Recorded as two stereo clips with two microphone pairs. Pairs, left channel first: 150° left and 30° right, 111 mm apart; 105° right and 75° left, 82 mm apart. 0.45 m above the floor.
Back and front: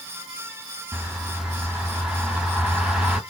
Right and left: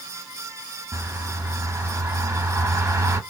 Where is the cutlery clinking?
I don't hear cutlery clinking.